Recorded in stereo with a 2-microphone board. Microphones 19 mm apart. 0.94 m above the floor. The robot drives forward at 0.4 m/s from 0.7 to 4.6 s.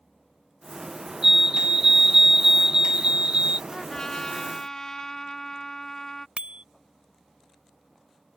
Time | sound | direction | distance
1.2 | a fire alarm | 25° right (ahead or behind) | ?
3.7 | a trumpet | 35° left (ahead or behind) | ?
6.4 | a bicycle bell | 85° right | ?